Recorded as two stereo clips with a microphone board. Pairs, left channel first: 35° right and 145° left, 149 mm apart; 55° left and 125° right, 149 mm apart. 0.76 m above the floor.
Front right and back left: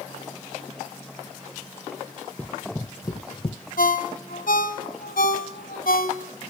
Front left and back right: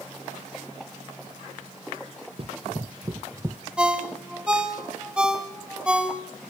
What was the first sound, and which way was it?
Running footsteps, 110° right.